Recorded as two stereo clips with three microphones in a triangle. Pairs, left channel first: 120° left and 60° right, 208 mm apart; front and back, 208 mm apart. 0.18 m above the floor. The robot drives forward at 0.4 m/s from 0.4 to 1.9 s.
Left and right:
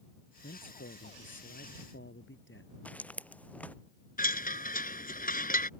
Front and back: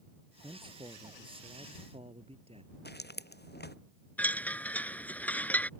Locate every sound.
0.4 s a man speaking: 115° left; by 2.8 s 120° left
2.9 s footsteps: 35° left
4.2 s a chime: 80° left